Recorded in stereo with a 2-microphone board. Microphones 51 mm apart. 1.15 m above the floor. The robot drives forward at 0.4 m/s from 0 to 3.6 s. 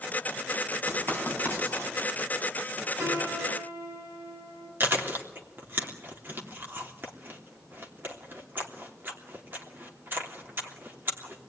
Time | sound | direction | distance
0.9 | writing | 85° right | 9.5 m
3.0 | a piano | 70° right (ahead or behind) | 8 m
4.8 | chewing | 45° right (ahead or behind) | 3 m